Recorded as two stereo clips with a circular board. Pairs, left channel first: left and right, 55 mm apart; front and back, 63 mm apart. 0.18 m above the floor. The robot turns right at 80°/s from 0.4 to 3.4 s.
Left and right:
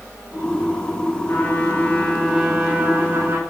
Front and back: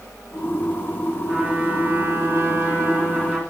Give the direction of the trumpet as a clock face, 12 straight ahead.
9 o'clock.